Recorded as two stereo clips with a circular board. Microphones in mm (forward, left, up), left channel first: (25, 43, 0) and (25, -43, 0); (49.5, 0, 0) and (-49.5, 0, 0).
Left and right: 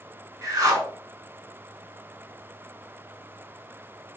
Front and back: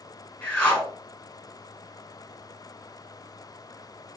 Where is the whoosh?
70° right, 1.0 m.